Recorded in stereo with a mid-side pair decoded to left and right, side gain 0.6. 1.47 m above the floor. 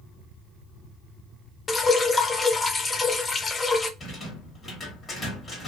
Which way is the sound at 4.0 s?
25° left.